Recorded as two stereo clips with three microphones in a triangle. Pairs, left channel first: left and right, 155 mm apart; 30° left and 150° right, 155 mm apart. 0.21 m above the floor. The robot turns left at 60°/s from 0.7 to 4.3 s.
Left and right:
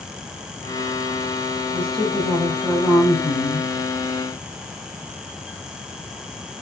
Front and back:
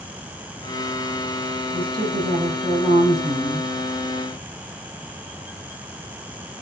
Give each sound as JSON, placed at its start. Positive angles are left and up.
{"t": 1.7, "sound": "a woman speaking", "azimuth_deg": -135, "distance_m": 7.0}